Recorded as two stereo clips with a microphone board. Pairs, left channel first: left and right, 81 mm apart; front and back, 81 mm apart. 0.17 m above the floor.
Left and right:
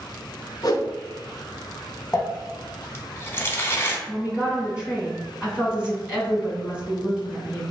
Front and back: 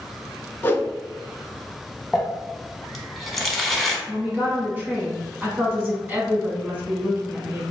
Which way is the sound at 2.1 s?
90° left.